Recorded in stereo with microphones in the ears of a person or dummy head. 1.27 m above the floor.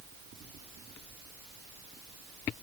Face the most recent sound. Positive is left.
No sound to turn to.